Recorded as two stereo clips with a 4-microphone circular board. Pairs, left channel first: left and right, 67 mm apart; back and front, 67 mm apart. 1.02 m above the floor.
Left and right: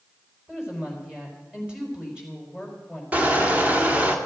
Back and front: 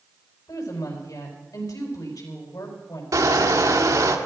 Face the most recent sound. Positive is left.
turn(degrees=-25)